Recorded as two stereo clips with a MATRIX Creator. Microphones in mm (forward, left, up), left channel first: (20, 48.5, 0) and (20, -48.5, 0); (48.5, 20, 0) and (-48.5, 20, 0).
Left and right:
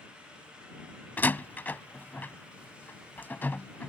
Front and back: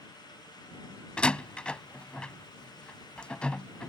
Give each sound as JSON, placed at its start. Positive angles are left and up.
{"t": 1.2, "sound": "a door slam", "azimuth_deg": 60}